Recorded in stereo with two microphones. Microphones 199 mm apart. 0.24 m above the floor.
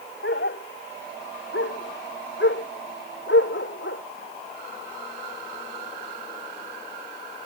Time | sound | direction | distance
0.2 | a dog barking | 65° left (ahead or behind) | ?